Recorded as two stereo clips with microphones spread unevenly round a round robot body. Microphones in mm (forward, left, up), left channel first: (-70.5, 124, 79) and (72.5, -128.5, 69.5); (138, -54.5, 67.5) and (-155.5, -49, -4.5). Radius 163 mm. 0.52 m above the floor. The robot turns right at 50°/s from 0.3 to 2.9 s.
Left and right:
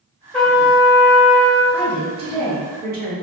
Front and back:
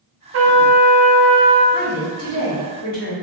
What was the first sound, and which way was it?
A trumpet, 155° right.